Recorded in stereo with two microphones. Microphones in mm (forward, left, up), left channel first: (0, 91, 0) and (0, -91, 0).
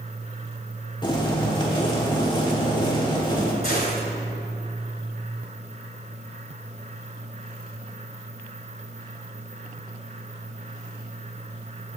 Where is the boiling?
25° left (ahead or behind), 1.3 m.